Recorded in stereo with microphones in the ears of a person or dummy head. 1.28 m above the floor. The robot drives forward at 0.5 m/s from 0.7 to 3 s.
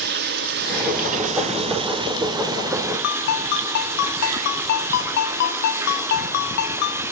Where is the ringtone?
55° left (ahead or behind), 2 m.